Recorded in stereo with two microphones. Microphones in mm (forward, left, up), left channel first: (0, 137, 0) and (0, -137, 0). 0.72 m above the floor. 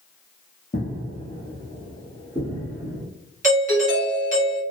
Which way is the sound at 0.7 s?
25° left (ahead or behind).